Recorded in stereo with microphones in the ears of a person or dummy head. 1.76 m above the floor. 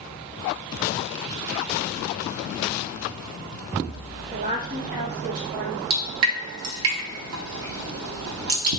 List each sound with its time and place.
4.3 s a woman speaking: 45° right (ahead or behind), 1.5 m; by 5.8 s 65° right (ahead or behind), 1.5 m
5.9 s dripping: 65° right (ahead or behind), 0.7 m